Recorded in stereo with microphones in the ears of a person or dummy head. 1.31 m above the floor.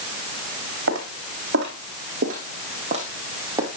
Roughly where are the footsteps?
Right.